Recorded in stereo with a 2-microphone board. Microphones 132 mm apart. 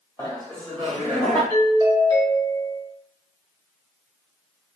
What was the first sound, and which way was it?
Laughter, 20° left (ahead or behind).